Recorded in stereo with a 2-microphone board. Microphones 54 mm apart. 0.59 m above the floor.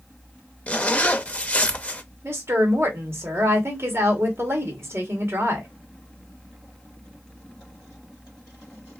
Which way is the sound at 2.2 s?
50° right (ahead or behind).